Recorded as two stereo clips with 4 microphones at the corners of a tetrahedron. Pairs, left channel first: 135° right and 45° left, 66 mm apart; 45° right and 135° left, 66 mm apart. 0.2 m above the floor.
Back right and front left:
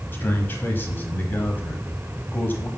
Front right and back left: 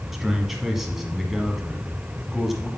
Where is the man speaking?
140° right, 1.4 m.